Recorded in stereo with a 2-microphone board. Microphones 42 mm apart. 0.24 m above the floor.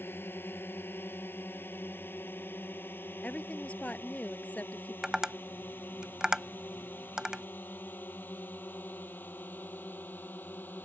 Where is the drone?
60° left (ahead or behind); by 10.8 s 45° left (ahead or behind).